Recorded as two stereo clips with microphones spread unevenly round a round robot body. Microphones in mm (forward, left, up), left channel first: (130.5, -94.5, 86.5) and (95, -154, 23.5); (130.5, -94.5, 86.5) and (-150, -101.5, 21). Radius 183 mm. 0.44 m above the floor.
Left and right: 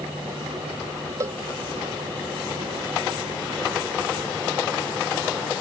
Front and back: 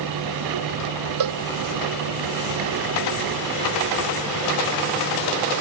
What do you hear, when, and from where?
1.2 s a cowbell: straight behind